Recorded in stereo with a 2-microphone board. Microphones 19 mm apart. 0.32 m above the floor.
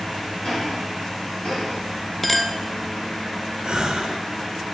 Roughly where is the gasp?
Right.